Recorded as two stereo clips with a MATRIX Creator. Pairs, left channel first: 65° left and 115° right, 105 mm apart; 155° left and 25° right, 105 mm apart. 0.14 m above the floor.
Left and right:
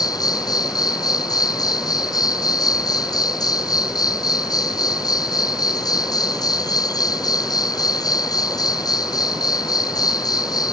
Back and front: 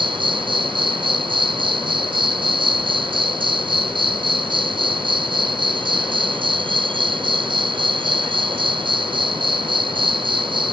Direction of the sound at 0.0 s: 15° left.